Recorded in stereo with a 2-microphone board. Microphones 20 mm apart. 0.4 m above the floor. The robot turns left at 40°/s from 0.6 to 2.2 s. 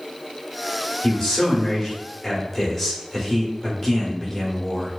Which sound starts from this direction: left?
A man speaking, at 1.0 s.